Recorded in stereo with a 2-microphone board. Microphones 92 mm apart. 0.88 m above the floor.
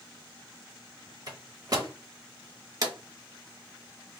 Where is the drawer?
40° right (ahead or behind), 0.9 m.